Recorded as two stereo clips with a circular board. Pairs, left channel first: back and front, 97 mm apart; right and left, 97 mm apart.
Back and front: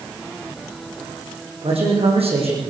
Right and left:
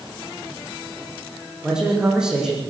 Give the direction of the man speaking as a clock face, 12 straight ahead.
12 o'clock.